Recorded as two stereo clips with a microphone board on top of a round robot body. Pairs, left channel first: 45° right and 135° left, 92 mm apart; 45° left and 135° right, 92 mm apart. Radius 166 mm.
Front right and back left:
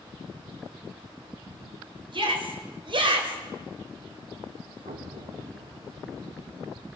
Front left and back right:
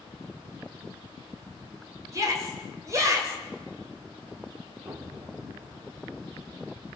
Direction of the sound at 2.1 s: 165° left.